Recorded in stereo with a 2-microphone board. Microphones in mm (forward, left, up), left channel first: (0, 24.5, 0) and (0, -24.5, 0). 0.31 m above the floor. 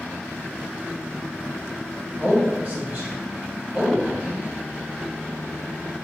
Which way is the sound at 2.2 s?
35° right (ahead or behind).